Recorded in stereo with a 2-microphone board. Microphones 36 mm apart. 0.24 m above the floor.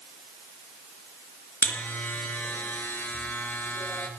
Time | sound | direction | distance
1.6 | a buzzer | 75° left (ahead or behind) | 3 m